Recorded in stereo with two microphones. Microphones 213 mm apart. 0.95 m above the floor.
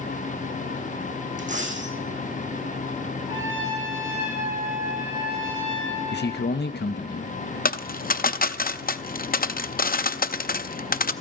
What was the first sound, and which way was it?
A dropped coin, 35° right (ahead or behind).